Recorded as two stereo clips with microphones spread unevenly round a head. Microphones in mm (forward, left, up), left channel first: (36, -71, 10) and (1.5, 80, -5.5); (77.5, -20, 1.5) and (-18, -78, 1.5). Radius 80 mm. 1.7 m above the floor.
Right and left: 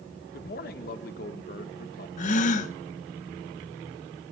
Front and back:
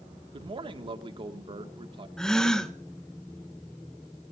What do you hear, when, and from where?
0.3 s a man speaking: 110° right, 1.7 m
2.2 s a gasp: 55° right, 1.2 m